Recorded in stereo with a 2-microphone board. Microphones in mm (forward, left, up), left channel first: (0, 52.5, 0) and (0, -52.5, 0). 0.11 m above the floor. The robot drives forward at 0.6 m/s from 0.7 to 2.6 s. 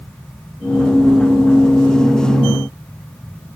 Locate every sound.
Only background noise.